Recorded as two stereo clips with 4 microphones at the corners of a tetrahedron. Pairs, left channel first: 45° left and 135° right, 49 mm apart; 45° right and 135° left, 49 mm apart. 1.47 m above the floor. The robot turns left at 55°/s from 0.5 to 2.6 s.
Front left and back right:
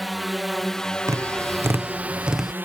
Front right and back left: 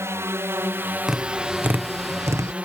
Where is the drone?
135° left; by 2.7 s 170° right.